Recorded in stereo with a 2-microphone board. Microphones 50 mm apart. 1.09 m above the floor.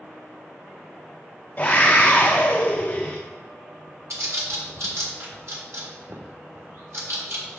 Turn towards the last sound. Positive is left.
turn(degrees=-65)  # may be behind; listen again after turning